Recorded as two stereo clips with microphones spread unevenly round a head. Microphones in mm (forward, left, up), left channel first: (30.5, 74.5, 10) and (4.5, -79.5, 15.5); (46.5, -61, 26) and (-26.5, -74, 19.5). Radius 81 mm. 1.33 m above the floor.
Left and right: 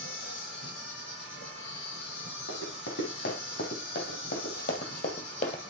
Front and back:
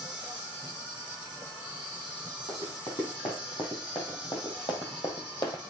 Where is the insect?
70° left, 7 m.